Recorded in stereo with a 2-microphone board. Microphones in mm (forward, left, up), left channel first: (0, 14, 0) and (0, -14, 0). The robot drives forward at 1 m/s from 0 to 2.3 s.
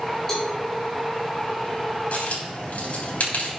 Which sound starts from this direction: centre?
A cowbell, at 0.3 s.